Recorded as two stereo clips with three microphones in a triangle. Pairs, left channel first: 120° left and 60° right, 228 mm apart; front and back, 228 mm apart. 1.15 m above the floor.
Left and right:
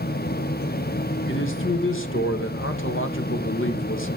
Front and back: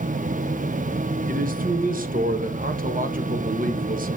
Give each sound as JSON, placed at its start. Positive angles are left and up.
{"t": 1.3, "sound": "a man speaking", "azimuth_deg": 135, "distance_m": 1.0}